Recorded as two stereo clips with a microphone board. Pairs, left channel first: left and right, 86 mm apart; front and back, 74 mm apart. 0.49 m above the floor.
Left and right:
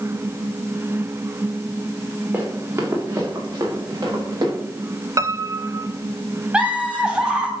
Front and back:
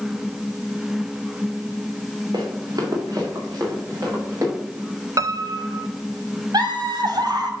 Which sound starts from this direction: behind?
Laughter, at 6.5 s.